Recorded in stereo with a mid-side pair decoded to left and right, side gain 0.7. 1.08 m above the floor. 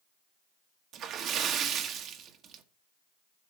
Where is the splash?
50° right, 1.3 m.